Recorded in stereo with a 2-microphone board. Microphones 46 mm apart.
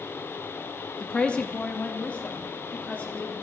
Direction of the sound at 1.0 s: 25° left (ahead or behind).